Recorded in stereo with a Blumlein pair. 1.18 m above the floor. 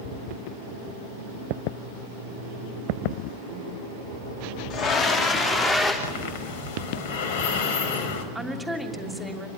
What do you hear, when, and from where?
4.7 s a scream: 30° left, 2.5 m; by 5.9 s 10° left, 3.5 m
6.0 s breathing: 55° left, 4 m
8.3 s a woman speaking: 5° right, 3 m